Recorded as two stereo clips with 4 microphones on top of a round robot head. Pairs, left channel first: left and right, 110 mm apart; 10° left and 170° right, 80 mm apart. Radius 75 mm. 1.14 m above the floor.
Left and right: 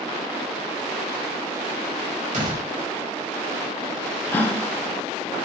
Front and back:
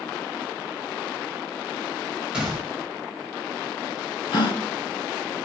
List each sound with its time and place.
2.3 s a door slam: 90° right, 4.5 m
4.3 s a gasp: 20° left, 3 m